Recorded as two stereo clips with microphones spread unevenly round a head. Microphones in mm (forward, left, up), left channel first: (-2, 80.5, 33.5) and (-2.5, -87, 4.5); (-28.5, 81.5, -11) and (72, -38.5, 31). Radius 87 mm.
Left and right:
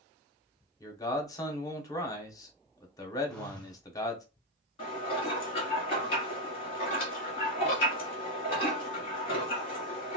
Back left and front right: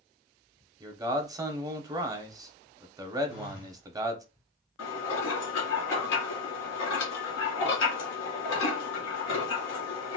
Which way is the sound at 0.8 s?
20° left.